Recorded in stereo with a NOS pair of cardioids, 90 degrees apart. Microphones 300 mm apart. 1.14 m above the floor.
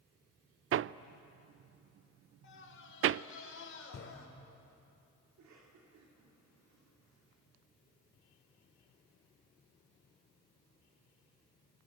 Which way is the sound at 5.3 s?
65° right.